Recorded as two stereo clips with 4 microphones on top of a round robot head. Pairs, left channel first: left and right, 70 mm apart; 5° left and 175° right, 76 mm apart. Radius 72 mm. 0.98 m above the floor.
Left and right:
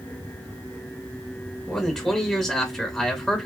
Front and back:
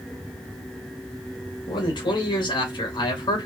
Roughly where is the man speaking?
Ahead.